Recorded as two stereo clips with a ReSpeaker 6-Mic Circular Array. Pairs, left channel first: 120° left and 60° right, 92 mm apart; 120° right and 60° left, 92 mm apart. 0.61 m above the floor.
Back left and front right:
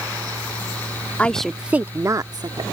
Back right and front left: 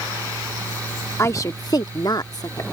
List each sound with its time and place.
1.2 s a woman speaking: 170° right; by 2.6 s 80° right